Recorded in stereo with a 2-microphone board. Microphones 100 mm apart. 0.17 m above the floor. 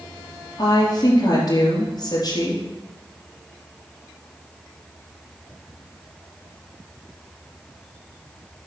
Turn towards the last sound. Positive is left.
turn(degrees=45)  # may be behind; listen again after turning